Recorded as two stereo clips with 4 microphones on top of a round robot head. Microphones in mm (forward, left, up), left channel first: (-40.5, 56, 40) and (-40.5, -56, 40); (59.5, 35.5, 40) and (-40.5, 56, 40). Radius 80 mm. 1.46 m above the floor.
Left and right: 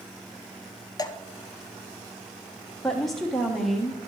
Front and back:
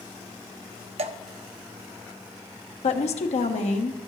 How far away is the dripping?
About 0.8 m.